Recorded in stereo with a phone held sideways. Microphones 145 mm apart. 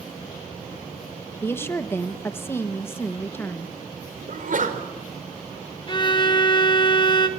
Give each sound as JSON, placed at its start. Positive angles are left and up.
{"t": 1.4, "sound": "a woman speaking", "side_deg": 15, "distance_m": 1.4}
{"t": 4.3, "sound": "a sneeze", "side_deg": -65, "distance_m": 4.5}
{"t": 5.9, "sound": "a violin", "side_deg": 35, "distance_m": 1.6}